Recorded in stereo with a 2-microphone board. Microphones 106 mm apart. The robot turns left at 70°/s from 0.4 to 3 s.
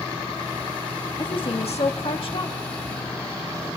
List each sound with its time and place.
1.2 s a woman speaking: 135° left, 1.5 m; by 2.6 s 35° left, 1.5 m